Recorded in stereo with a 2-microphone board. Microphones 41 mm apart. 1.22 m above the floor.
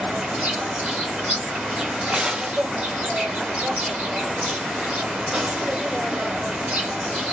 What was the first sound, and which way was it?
An insect, 40° right (ahead or behind).